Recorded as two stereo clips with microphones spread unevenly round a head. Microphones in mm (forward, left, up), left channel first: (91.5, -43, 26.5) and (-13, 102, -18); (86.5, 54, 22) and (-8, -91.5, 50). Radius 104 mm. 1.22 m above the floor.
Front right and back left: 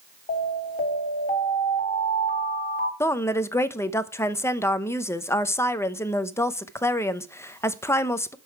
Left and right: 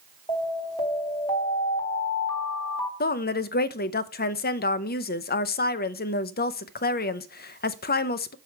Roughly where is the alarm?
Ahead.